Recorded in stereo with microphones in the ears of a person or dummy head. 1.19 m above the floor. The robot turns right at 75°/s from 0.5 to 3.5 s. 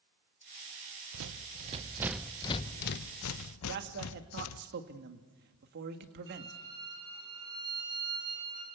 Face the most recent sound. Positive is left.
turn(degrees=-25)  # may be behind; listen again after turning